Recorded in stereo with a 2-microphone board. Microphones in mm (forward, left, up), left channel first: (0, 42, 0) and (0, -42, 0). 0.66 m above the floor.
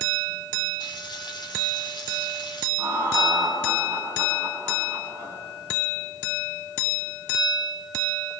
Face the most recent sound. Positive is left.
turn(degrees=-30)  # may be behind; listen again after turning